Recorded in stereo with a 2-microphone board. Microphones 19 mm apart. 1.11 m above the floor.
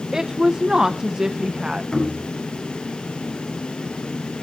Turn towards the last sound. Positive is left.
turn(degrees=55)  # may be behind; listen again after turning